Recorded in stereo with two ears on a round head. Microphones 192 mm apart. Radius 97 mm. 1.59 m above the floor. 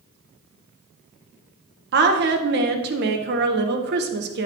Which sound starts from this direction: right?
A woman speaking, at 1.9 s.